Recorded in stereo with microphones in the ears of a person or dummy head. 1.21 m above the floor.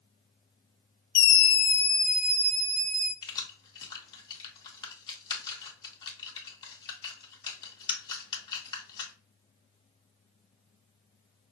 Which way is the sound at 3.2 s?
25° left (ahead or behind).